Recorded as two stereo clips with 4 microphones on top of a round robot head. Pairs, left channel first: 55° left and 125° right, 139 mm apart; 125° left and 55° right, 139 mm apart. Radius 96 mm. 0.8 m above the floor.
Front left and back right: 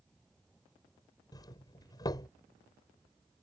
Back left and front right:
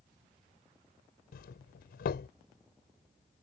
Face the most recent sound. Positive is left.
turn(degrees=115)